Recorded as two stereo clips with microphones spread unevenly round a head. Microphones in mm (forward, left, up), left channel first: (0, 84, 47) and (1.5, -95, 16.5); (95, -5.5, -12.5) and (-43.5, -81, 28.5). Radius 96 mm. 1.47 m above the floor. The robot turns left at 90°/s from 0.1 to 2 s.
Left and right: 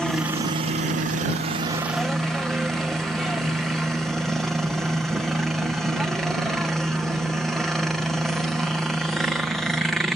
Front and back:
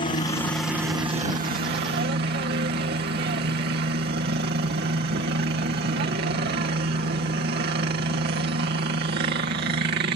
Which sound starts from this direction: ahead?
A helicopter, at 0.0 s.